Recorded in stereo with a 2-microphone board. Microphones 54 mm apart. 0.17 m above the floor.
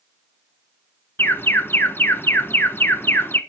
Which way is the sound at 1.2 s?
45° left (ahead or behind).